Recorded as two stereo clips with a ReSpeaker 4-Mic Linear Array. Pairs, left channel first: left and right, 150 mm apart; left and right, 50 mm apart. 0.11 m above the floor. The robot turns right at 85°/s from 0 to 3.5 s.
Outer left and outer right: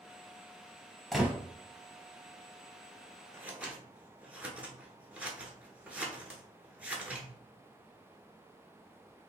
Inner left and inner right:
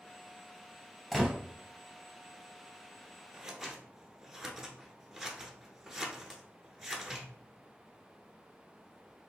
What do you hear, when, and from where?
1.1 s a gunshot: centre (ahead or behind), 0.9 m; by 1.3 s 15° right (ahead or behind), 0.9 m
3.3 s scissors: 20° right (ahead or behind), 0.7 m; by 7.3 s 10° right (ahead or behind), 0.7 m